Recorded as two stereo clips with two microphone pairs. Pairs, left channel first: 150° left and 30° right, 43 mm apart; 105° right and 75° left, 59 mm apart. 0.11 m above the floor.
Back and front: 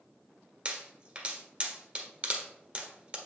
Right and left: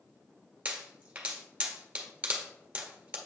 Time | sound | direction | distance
0.7 | a pop | 15° left | 1.4 m